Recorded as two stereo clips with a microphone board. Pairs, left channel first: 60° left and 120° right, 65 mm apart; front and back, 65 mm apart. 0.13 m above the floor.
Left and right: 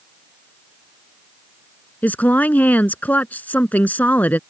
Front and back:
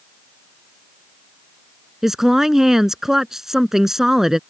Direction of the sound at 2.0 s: 100° left.